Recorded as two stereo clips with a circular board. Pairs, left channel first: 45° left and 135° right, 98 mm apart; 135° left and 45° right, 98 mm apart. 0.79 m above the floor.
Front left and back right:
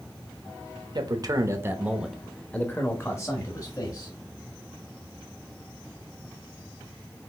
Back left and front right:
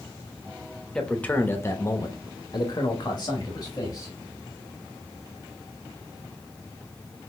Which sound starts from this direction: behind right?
A man speaking, at 0.9 s.